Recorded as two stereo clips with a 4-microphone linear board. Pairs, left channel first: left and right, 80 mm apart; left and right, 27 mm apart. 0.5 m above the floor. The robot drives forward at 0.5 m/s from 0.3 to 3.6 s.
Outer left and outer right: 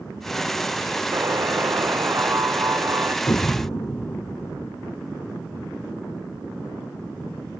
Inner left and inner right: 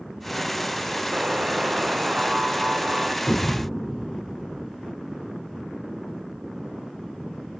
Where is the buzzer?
40° right (ahead or behind); by 3.1 s 35° right (ahead or behind).